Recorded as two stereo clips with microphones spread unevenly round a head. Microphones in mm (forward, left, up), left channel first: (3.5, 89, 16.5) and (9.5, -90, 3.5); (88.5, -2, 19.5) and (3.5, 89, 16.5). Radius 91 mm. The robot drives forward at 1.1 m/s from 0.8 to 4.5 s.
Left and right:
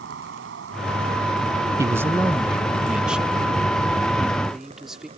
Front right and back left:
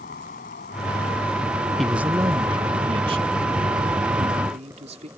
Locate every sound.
0.0 s an insect: 65° right; by 5.2 s 150° right
1.8 s a man speaking: 135° right; by 5.1 s 175° right